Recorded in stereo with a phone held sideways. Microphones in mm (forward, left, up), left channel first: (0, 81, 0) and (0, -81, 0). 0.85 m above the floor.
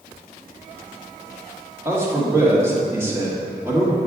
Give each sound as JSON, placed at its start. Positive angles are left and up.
{"t": 1.9, "sound": "a man speaking", "side_deg": -15, "distance_m": 1.4}